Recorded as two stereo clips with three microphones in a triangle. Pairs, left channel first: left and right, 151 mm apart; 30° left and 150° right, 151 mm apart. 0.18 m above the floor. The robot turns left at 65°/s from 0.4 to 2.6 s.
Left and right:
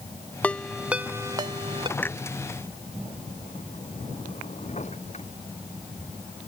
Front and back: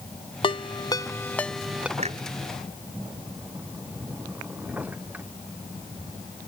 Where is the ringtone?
15° left; by 1.9 s 75° right.